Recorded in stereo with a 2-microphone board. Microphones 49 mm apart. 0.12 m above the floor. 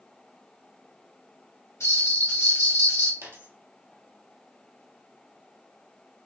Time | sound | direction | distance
1.8 | a bell | 75° left (ahead or behind) | 2.5 m
3.2 | a dropped coin | 70° right (ahead or behind) | 1.5 m